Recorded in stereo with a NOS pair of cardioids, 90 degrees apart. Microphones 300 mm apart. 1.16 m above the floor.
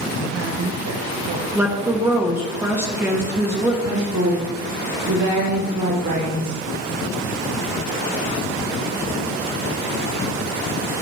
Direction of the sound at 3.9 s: 65° right.